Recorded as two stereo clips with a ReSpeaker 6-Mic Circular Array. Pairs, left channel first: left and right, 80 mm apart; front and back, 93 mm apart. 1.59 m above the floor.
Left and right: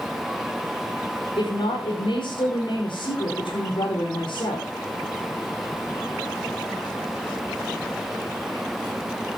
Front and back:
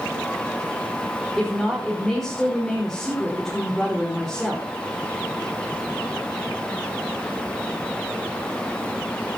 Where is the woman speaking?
90° left, 5.5 m.